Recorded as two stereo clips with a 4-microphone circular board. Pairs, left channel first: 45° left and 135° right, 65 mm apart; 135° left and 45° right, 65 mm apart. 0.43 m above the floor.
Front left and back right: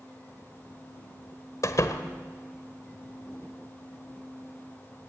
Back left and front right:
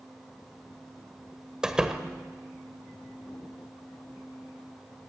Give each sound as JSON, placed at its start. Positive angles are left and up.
{"t": 1.6, "sound": "a door slam", "azimuth_deg": 30, "distance_m": 1.4}